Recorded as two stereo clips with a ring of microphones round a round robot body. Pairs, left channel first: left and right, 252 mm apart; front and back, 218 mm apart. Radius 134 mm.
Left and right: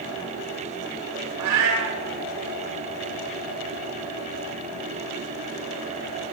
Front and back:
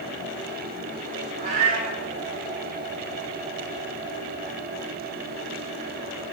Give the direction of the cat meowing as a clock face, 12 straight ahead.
4 o'clock.